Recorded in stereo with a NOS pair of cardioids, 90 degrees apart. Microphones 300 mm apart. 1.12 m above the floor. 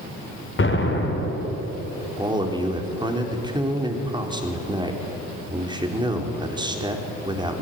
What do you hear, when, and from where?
0.6 s an explosion: 40° left, 4 m
2.2 s a man speaking: 15° right, 4 m